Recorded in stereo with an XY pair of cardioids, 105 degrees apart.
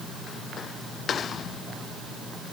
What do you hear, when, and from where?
Only background noise.